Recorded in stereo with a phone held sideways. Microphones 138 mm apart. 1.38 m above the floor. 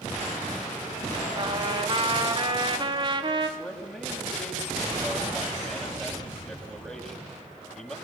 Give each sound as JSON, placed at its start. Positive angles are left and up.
{"t": 1.4, "sound": "a trumpet", "side_deg": -35, "distance_m": 3.5}
{"t": 3.6, "sound": "a man speaking", "side_deg": 0, "distance_m": 6.5}